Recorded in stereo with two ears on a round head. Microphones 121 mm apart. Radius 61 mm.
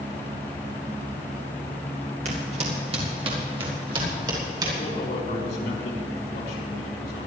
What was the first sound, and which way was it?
Footsteps, 55° right (ahead or behind).